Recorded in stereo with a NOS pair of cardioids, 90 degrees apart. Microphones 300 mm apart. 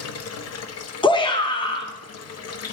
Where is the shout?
15° left, 1.0 m.